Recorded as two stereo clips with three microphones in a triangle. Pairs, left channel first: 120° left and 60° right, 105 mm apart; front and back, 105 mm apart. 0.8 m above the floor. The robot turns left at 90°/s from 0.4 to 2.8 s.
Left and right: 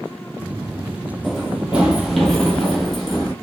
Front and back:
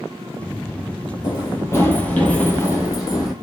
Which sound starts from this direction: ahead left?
Running footsteps, at 1.2 s.